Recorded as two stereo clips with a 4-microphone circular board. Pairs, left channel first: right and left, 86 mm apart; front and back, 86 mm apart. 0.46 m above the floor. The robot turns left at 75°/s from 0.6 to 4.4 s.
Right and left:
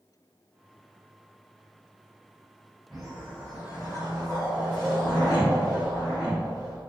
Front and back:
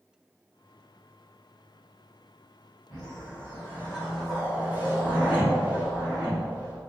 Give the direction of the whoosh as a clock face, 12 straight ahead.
12 o'clock.